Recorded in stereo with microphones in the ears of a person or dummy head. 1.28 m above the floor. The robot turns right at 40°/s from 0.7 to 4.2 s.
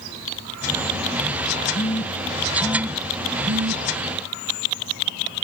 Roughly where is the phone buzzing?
Left.